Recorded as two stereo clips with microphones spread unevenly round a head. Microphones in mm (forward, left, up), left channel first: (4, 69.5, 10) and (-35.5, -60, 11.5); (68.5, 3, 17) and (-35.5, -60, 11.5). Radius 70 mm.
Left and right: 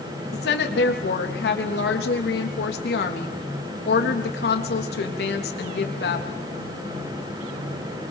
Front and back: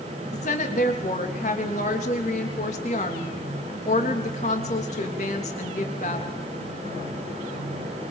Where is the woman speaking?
75° left, 3.5 m.